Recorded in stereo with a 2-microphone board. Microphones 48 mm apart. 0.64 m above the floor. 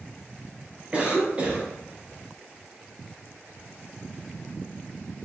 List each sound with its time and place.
0.9 s a cough: 20° right (ahead or behind), 0.7 m